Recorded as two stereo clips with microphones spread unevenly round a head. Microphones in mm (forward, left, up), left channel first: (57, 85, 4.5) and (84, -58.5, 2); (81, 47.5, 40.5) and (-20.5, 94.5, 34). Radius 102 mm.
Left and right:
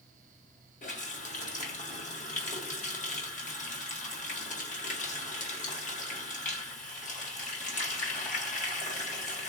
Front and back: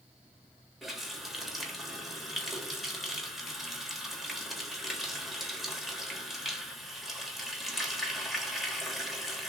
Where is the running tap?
65° left, 1.4 m.